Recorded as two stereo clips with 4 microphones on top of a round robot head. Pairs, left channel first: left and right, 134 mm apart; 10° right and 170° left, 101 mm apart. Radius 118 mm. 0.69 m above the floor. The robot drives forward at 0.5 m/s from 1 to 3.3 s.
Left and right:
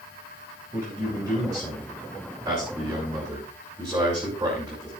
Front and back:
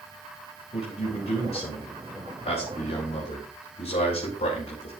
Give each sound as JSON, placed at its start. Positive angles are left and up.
{"t": 0.7, "sound": "a man speaking", "azimuth_deg": -20, "distance_m": 6.0}